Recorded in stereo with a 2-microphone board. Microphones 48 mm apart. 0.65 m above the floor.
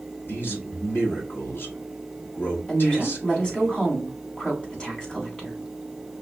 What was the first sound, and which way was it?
A man speaking, 50° left (ahead or behind).